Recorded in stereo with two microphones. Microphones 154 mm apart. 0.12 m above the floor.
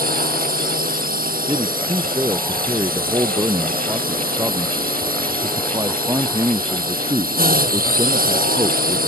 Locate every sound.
0.0 s a drone: 65° right (ahead or behind)
1.5 s a man speaking: 20° right (ahead or behind)